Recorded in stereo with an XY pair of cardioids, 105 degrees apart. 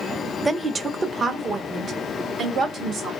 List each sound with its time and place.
0.5 s a woman speaking: 10° right, 0.6 m; by 3.1 s 60° right, 2 m